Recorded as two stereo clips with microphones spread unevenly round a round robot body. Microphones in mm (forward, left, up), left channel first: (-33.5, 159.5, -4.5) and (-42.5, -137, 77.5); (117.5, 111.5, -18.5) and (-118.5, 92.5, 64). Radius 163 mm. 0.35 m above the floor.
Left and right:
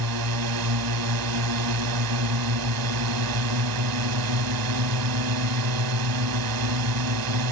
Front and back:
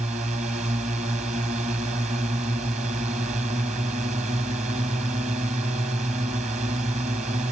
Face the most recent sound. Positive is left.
turn(degrees=-100)